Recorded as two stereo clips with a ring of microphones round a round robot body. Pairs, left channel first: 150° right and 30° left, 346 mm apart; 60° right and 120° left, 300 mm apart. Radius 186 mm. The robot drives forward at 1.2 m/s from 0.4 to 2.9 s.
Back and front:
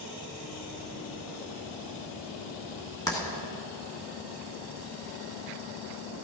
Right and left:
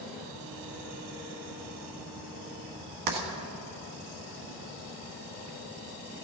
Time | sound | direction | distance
3.1 | writing | 130° left | 2 m